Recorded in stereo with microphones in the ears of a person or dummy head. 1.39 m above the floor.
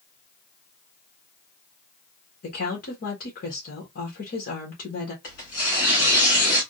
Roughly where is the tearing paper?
Left.